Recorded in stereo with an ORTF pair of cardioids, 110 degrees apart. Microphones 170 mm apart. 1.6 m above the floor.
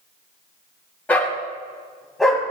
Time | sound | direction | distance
1.1 | a dog barking | 10° left | 4 m